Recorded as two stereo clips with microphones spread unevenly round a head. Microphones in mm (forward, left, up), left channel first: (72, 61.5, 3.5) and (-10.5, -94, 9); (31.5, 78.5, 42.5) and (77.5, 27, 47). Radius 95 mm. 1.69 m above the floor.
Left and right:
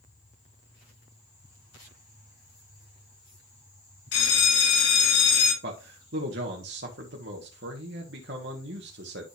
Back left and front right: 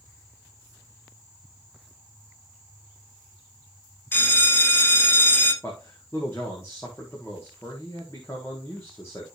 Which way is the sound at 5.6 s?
150° right.